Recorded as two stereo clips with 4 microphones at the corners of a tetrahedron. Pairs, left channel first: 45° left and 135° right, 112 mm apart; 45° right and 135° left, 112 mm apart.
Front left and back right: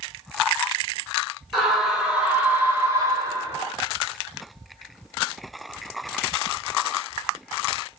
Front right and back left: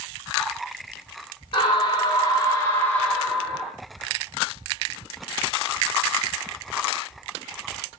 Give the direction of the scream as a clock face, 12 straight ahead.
2 o'clock.